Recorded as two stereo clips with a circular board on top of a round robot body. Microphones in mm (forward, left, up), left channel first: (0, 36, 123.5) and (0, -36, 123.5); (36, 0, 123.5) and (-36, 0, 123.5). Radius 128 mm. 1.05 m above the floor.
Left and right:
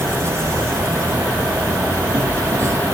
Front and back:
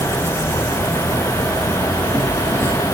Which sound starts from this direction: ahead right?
An insect, at 0.0 s.